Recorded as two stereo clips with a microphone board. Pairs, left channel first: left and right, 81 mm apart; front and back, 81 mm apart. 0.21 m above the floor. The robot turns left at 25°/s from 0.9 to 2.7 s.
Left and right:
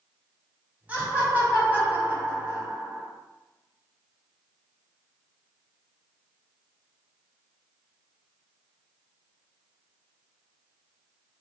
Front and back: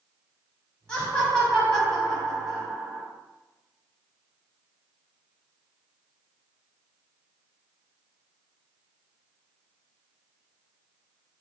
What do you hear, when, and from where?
0.9 s laughter: 60° right, 1.0 m; by 3.1 s 105° right, 1.0 m